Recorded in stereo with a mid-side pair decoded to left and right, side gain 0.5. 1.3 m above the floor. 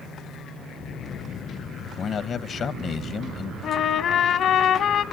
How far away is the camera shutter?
I don't hear a camera shutter.